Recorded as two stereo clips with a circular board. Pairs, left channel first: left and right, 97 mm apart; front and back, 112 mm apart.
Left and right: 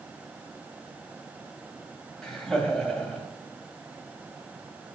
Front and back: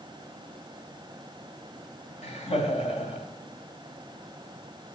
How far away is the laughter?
About 2.5 m.